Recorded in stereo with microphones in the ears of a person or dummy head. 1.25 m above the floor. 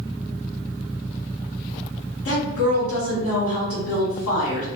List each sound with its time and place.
2.2 s a woman speaking: 80° left, 1.4 m